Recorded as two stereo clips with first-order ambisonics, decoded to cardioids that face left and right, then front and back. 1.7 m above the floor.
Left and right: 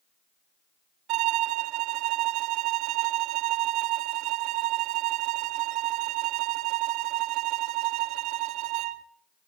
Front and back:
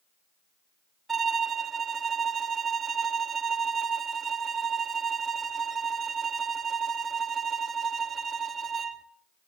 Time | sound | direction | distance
1.1 | a violin | 110° right | 0.9 m